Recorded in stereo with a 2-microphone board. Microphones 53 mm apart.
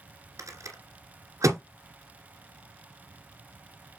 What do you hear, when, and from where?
0.4 s a rattle: 70° right (ahead or behind), 2 m